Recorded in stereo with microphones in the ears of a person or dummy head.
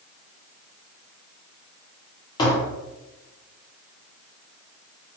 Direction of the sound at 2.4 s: 20° left (ahead or behind).